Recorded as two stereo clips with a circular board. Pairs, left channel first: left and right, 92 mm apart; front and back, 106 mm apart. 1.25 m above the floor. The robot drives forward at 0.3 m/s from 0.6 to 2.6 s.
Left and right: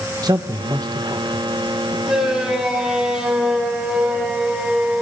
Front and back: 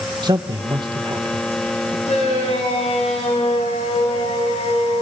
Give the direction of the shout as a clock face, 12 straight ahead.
12 o'clock.